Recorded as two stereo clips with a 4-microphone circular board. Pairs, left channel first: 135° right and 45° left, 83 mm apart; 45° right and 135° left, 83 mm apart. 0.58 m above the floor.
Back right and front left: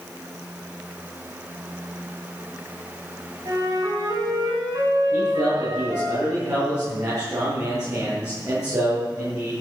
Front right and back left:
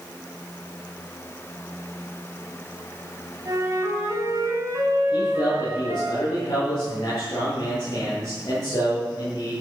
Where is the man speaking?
Straight ahead, 8.5 m.